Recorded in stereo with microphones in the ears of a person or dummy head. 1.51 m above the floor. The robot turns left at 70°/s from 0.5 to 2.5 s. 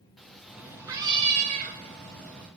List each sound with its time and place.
0.2 s a cat meowing: straight ahead, 1.0 m; by 2.5 s 140° right, 1.0 m